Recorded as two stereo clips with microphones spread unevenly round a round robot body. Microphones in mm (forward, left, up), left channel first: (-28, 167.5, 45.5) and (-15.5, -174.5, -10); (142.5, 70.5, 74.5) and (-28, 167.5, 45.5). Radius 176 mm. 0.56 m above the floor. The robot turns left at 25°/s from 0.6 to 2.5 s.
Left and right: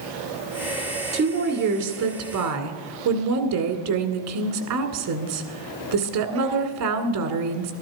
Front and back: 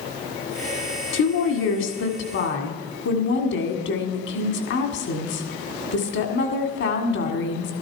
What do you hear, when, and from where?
1.1 s a woman speaking: 25° right, 1.9 m; by 7.7 s 60° right, 1.9 m